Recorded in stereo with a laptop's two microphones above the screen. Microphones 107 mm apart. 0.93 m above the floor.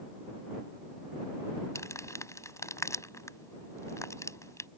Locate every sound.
1.8 s crumpling: 30° left (ahead or behind)